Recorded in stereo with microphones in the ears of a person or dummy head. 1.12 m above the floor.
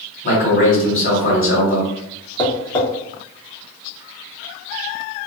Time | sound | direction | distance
0.2 | a man speaking | 40° left (ahead or behind) | 1.7 m
2.4 | tapping | 20° left (ahead or behind) | 0.7 m